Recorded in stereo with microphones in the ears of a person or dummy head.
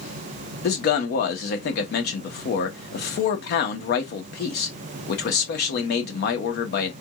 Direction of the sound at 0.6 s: 60° left (ahead or behind).